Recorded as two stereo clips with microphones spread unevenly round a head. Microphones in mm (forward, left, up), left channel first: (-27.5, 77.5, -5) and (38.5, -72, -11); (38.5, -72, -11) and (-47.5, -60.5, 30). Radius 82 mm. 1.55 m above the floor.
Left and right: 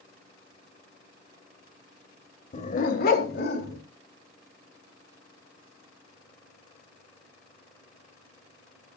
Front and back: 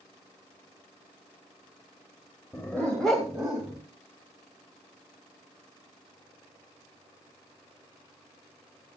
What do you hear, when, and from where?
2.5 s a dog barking: 80° left, 1.9 m; by 3.8 s 105° left, 3.5 m